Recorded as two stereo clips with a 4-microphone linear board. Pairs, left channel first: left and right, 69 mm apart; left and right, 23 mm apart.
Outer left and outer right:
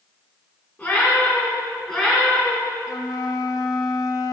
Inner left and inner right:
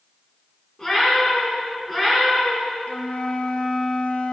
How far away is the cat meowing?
About 3.5 m.